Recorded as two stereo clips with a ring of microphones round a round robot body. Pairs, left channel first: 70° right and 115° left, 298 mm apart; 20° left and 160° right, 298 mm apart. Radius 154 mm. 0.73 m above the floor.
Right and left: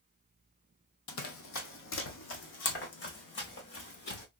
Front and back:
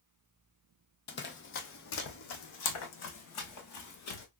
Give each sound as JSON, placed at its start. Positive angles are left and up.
{"t": 1.1, "sound": "running footsteps", "azimuth_deg": -30, "distance_m": 1.2}